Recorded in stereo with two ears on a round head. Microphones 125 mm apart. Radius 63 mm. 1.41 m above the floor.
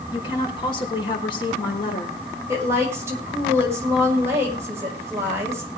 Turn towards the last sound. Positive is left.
turn(degrees=-20)  # may be behind; listen again after turning